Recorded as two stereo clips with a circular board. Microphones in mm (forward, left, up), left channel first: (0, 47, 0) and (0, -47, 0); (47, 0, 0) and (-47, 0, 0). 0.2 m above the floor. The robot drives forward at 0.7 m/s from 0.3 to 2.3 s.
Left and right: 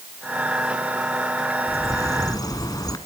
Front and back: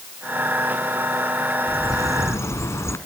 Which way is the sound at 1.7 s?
40° left.